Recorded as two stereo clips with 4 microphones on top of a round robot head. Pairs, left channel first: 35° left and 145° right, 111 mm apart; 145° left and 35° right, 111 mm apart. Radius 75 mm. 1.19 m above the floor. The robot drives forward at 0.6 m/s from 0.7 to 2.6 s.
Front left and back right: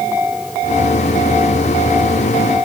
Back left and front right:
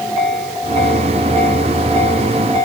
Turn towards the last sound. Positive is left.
No sound to turn to.